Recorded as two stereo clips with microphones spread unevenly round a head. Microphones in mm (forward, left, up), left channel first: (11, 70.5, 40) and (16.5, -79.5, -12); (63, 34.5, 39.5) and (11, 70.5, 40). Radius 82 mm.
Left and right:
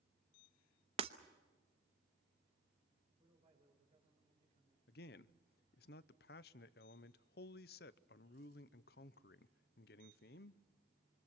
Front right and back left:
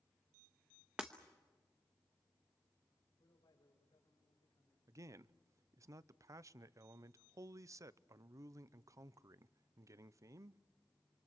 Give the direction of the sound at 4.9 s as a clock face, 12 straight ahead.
8 o'clock.